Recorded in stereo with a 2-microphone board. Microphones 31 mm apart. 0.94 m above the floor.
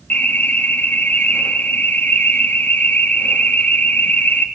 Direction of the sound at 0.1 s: 70° left (ahead or behind).